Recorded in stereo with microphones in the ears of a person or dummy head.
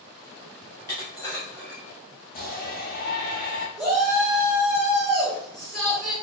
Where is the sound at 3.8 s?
5° left (ahead or behind), 1.2 m.